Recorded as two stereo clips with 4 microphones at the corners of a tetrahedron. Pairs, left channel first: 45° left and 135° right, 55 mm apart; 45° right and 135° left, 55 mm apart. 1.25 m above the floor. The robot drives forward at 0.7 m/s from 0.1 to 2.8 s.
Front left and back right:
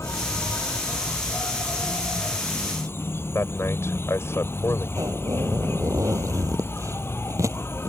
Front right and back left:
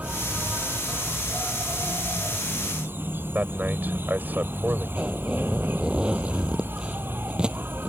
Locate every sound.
0.0 s an insect: 70° left; by 7.9 s 85° left
3.4 s a man speaking: 75° left
5.0 s a zipper: 150° right